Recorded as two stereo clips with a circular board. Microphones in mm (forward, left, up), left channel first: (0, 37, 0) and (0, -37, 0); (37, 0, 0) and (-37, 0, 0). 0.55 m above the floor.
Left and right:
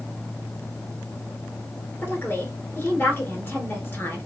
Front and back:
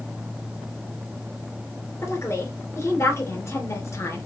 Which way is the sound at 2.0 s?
35° left.